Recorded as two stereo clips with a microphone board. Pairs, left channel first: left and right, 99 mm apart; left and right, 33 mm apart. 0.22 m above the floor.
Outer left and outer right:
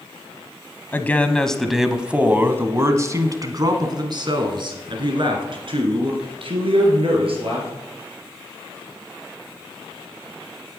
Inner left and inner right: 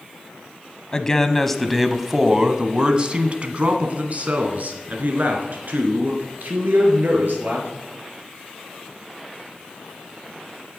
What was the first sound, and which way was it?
A man speaking, 20° left (ahead or behind).